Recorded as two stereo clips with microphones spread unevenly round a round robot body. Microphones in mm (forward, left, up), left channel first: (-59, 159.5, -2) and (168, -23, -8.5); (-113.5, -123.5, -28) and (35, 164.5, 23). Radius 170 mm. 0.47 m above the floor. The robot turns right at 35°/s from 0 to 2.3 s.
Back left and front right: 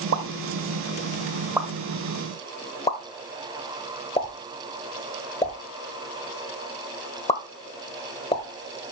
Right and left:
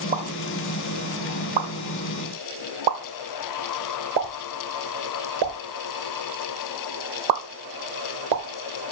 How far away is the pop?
About 1.3 m.